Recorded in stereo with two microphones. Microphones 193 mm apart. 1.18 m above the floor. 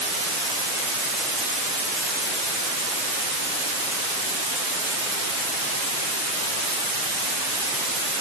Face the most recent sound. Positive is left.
No sound to turn to.